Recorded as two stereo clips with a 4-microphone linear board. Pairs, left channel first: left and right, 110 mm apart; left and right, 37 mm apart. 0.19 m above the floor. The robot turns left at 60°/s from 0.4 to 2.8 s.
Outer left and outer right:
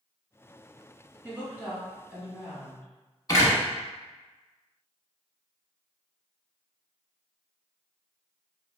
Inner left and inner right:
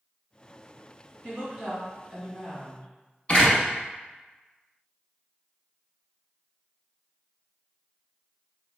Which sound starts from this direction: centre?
A woman speaking, at 1.2 s.